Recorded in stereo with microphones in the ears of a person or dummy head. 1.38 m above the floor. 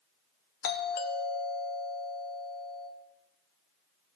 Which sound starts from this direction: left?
A doorbell, at 0.6 s.